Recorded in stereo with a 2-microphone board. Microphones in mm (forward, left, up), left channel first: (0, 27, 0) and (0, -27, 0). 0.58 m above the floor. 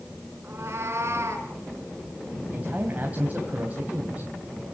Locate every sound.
0.4 s a cat meowing: 45° right (ahead or behind), 4 m; by 1.5 s 55° right (ahead or behind), 4 m
2.5 s a man speaking: 30° right (ahead or behind), 3 m